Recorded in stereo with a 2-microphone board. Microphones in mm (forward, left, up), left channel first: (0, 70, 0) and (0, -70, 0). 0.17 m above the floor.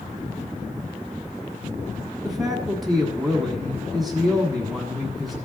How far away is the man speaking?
About 1.1 m.